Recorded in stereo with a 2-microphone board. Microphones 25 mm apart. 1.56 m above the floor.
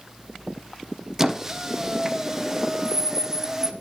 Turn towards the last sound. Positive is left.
turn(degrees=-15)  # may be behind; listen again after turning